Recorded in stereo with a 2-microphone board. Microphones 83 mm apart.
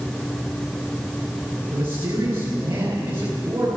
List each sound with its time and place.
1.7 s a man speaking: 30° right (ahead or behind), 9.5 m